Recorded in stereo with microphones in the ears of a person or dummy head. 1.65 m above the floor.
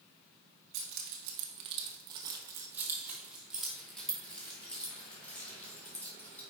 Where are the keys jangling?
55° right (ahead or behind), 1.0 m; by 6.4 s 10° left (ahead or behind), 3 m.